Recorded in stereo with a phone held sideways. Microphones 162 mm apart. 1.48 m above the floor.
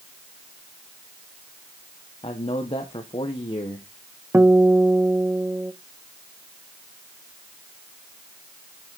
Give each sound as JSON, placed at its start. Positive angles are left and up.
{"t": 2.2, "sound": "a man speaking", "side_deg": 35, "distance_m": 1.0}
{"t": 4.3, "sound": "a guitar", "side_deg": -15, "distance_m": 0.7}